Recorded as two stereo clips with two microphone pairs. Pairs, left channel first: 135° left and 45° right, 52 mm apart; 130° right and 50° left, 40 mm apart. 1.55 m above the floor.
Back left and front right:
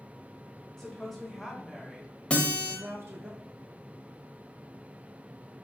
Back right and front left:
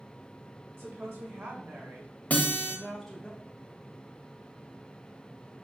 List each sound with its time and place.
0.8 s a woman speaking: 55° left, 2 m; by 3.3 s 60° right, 0.8 m
2.3 s a guitar: 160° right, 1.0 m